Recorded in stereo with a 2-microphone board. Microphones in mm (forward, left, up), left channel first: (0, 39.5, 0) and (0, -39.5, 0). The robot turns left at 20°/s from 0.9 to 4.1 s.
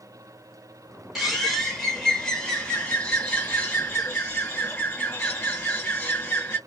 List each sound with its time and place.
1.1 s a bird: 170° right, 1.8 m; by 6.6 s 130° left, 1.8 m